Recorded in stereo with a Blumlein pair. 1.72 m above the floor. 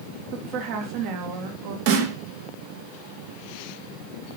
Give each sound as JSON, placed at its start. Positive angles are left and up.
{"t": 0.3, "sound": "a woman speaking", "azimuth_deg": -45, "distance_m": 2.5}
{"t": 1.9, "sound": "a snare drum", "azimuth_deg": -50, "distance_m": 2.5}